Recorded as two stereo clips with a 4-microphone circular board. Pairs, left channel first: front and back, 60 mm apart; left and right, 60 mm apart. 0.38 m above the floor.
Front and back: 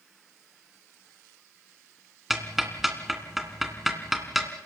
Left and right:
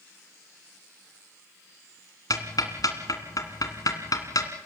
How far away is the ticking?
About 2.5 m.